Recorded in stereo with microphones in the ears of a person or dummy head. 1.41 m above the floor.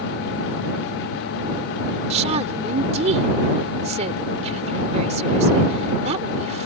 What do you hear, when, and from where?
2.1 s a woman speaking: 35° right (ahead or behind)